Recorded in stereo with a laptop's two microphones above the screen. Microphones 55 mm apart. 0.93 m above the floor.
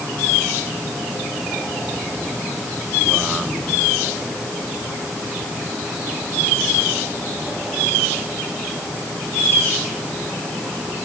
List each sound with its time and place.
Only background noise.